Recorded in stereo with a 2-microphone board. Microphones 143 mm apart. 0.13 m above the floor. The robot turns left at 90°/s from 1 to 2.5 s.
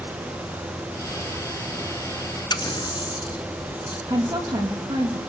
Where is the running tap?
30° left (ahead or behind), 1.1 m.